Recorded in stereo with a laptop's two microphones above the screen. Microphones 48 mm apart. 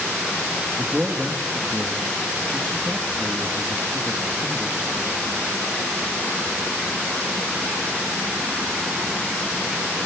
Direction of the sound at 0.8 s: 15° right (ahead or behind).